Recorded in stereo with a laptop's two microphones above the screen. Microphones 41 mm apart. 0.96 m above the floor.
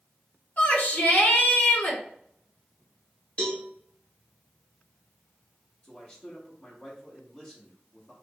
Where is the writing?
No writing in this recording.